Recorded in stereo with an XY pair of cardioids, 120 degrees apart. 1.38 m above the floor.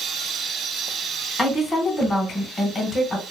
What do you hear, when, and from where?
1.4 s a woman speaking: 25° left, 1.5 m